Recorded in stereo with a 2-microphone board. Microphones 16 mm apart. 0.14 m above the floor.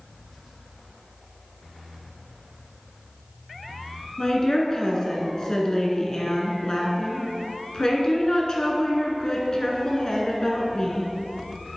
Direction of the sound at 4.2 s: 40° left (ahead or behind).